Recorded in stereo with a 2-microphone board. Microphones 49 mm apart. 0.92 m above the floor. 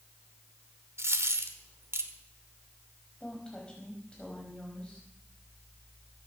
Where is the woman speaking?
20° left (ahead or behind), 5 m.